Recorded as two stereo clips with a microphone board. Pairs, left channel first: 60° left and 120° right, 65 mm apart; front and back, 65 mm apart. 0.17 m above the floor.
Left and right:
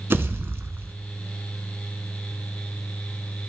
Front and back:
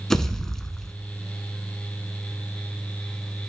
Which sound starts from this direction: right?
A pop, at 0.1 s.